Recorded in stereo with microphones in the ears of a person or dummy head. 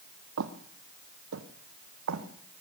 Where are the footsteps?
60° right (ahead or behind), 2.5 m; by 2.6 s 75° right (ahead or behind), 4 m.